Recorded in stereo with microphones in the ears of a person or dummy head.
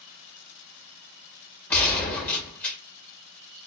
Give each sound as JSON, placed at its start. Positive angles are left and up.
{"t": 1.7, "sound": "a gunshot", "side_deg": 10, "distance_m": 1.7}